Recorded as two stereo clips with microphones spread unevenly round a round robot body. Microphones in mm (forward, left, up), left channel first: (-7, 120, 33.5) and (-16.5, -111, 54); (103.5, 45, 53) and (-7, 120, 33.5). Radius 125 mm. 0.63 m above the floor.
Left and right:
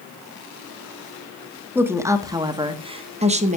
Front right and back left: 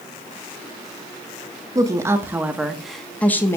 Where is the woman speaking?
175° right, 1.5 m; by 3.6 s 105° right, 1.2 m.